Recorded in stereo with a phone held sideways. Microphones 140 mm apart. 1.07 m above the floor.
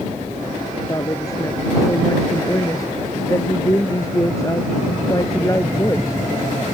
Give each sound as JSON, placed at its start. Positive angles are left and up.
{"t": 0.9, "sound": "a woman speaking", "side_deg": 25}